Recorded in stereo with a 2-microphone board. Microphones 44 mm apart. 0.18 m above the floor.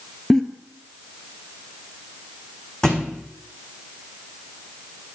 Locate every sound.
0.3 s a giggle: 10° left (ahead or behind), 0.8 m
2.8 s a thud: 10° left (ahead or behind), 1.8 m